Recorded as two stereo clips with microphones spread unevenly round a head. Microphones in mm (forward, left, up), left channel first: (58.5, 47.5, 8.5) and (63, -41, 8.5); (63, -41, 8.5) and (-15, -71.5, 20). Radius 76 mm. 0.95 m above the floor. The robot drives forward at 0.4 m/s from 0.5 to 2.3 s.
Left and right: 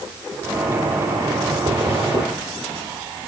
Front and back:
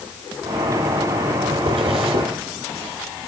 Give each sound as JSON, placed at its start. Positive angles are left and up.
{"t": 1.7, "sound": "a zipper", "azimuth_deg": -155, "distance_m": 3.0}